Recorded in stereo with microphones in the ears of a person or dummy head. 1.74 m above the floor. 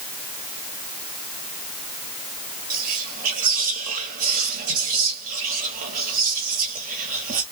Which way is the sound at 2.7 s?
45° right (ahead or behind).